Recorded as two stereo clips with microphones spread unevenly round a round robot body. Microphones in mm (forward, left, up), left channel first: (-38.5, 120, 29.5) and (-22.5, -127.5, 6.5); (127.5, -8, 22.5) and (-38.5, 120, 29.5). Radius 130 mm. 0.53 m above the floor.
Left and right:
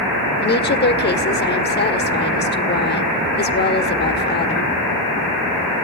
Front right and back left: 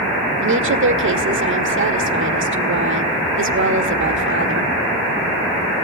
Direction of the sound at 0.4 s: 140° left.